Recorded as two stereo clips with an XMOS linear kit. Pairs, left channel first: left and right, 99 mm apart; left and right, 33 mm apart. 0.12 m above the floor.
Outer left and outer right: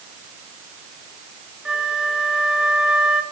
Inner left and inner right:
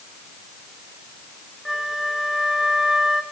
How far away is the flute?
About 1.8 m.